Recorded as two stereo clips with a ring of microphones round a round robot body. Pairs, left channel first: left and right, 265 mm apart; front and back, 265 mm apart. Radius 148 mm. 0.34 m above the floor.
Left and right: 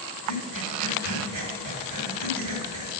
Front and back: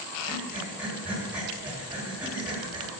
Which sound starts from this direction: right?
Breathing, at 0.3 s.